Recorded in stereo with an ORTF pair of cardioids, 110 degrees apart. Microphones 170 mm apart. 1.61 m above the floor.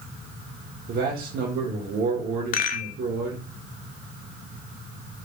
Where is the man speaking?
60° right, 1.1 m.